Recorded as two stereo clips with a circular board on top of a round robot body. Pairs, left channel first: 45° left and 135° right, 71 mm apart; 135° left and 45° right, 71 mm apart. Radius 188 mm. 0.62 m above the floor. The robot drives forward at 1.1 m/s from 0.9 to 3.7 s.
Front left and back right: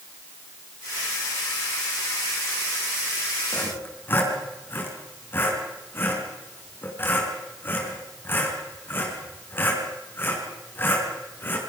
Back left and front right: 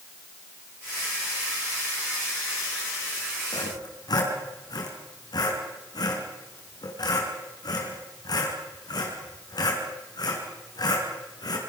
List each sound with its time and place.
3.5 s sawing: 105° left, 5 m